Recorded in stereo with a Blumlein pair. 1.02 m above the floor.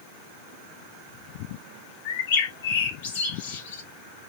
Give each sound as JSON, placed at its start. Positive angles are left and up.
{"t": 2.0, "sound": "a bird", "azimuth_deg": 50, "distance_m": 1.4}